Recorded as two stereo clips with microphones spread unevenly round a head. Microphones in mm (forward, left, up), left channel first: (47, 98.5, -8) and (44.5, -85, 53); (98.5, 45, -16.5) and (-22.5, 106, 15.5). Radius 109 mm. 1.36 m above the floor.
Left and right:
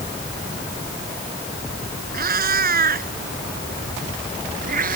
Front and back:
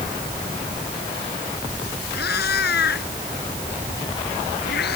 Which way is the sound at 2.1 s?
55° right.